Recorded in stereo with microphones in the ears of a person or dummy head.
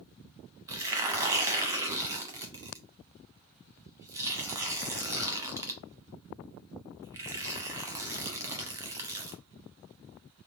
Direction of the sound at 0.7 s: 15° right (ahead or behind).